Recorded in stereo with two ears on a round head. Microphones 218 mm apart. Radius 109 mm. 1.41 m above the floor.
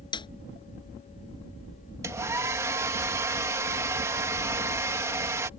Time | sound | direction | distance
0.1 | a snare drum | 20° left (ahead or behind) | ?
2.0 | a hair dryer | 10° right (ahead or behind) | ?